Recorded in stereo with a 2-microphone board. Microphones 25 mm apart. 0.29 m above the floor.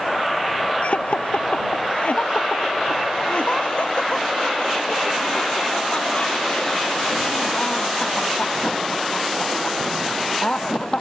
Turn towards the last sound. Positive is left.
turn(degrees=30)  # may be behind; listen again after turning